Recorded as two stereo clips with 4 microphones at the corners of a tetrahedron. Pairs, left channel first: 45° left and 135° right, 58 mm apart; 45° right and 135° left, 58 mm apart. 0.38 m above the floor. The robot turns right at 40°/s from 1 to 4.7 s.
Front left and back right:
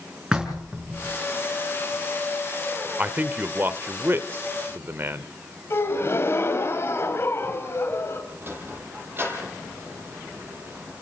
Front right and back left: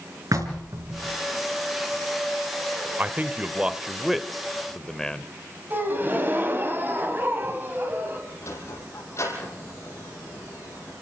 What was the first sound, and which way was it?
Knocking, 150° left.